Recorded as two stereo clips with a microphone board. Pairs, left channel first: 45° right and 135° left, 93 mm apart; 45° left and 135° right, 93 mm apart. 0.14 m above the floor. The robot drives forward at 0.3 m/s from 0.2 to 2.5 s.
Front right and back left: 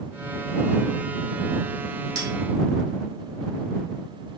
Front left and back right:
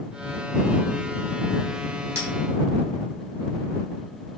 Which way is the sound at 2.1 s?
170° left.